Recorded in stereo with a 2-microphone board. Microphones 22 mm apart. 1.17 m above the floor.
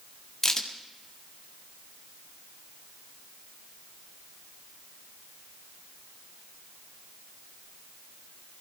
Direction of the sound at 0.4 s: 30° left (ahead or behind).